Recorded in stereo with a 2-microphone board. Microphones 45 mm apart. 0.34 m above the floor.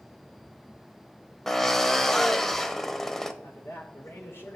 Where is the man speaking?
65° left (ahead or behind), 5 m.